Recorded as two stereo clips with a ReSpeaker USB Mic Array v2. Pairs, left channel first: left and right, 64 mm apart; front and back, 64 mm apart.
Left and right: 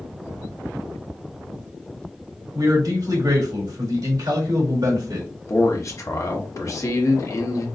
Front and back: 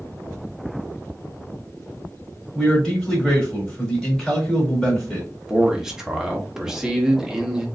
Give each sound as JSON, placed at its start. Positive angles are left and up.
{"t": 2.5, "sound": "a man speaking", "azimuth_deg": -85, "distance_m": 2.5}
{"t": 5.5, "sound": "a man speaking", "azimuth_deg": 100, "distance_m": 1.0}